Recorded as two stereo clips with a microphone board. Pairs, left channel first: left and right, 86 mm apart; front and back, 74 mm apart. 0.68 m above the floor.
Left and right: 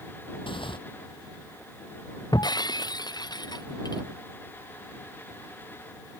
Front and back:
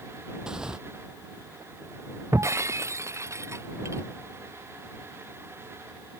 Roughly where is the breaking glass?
Behind left.